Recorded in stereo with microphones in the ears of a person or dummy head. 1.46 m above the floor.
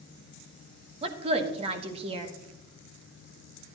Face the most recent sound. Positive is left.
turn(degrees=-40)  # may be behind; listen again after turning